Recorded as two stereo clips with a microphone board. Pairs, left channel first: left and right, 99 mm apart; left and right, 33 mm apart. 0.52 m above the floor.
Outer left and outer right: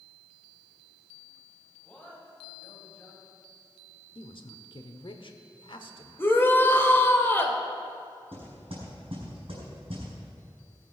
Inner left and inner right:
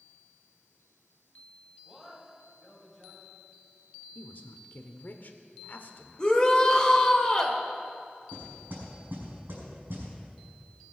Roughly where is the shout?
Left.